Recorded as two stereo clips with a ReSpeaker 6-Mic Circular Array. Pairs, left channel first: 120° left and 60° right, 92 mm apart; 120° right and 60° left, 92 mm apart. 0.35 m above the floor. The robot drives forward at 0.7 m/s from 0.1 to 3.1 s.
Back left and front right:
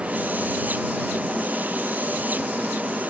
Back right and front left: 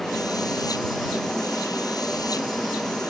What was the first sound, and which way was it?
Only background noise.